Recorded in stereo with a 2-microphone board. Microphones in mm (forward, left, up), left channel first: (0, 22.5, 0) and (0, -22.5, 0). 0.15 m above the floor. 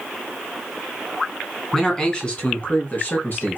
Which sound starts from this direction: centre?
A man speaking, at 1.7 s.